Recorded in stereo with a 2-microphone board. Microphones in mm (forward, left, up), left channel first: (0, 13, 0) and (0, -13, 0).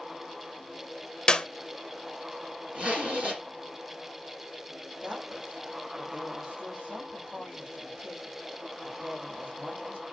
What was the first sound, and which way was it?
A clap, 35° left (ahead or behind).